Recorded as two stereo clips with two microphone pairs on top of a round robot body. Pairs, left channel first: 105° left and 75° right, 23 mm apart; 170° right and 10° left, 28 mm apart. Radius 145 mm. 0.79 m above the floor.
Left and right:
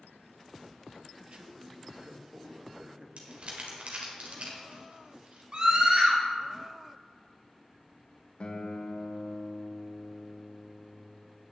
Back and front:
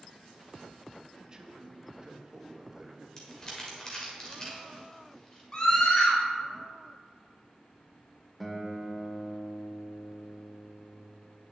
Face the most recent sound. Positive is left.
turn(degrees=100)